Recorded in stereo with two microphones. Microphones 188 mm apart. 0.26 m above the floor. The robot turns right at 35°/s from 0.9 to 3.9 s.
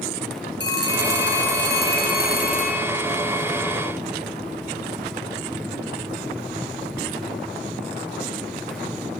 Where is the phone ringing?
75° left, 2.5 m; by 2.9 s 145° left, 2.5 m.